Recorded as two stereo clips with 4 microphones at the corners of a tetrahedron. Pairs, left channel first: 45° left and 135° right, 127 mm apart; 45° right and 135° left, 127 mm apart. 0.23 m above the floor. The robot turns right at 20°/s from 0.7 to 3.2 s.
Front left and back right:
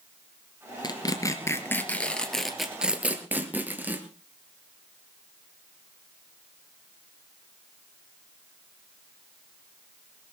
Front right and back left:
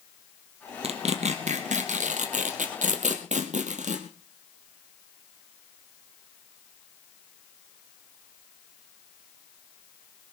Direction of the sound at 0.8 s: 100° left.